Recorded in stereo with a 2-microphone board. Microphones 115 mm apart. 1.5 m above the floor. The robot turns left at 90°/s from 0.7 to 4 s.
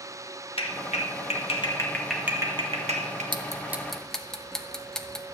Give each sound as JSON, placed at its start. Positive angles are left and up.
{"t": 0.6, "sound": "a clap", "side_deg": 55, "distance_m": 1.4}
{"t": 3.3, "sound": "ticking", "side_deg": -40, "distance_m": 0.9}